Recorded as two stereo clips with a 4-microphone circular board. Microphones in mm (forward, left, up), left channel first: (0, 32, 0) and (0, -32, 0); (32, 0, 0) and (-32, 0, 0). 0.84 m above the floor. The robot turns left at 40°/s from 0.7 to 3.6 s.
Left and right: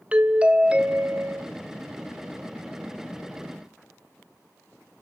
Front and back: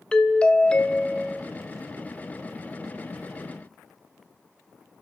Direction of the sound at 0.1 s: 50° right.